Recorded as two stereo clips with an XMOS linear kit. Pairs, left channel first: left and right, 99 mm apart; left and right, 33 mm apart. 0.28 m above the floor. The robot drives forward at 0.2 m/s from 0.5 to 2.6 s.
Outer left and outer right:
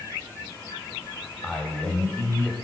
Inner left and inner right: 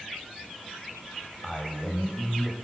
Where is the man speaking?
15° left (ahead or behind), 1.0 m.